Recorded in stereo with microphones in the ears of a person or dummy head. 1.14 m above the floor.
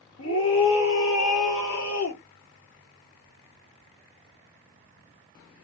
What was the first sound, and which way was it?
A scream, 75° left (ahead or behind).